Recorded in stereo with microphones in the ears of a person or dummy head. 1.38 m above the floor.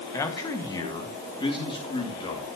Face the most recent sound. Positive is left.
turn(degrees=25)  # may be behind; listen again after turning